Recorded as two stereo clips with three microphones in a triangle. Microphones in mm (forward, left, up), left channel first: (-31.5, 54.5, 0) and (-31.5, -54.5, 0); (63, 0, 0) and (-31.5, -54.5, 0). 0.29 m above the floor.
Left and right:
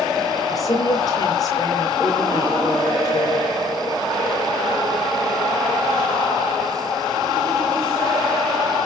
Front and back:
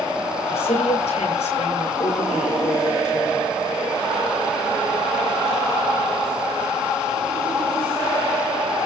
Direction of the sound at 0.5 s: 35° left.